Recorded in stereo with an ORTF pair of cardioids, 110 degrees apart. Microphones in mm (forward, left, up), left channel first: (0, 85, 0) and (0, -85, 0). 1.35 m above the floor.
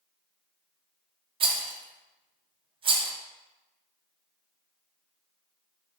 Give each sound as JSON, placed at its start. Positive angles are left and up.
{"t": 1.4, "sound": "a rattle", "azimuth_deg": -30, "distance_m": 0.6}